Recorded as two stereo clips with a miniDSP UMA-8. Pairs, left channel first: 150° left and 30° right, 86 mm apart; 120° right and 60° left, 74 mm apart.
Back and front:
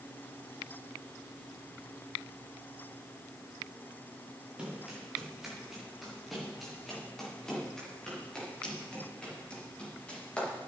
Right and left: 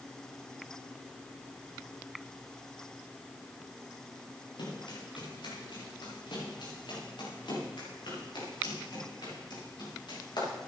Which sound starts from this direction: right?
Running footsteps, at 4.6 s.